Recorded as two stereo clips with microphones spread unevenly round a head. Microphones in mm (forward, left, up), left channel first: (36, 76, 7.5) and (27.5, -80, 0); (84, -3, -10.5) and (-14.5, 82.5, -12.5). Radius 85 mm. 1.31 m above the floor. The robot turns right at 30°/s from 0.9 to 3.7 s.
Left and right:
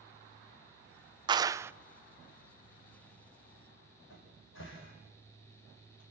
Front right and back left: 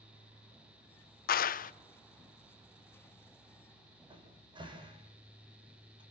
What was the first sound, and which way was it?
A clap, 30° right.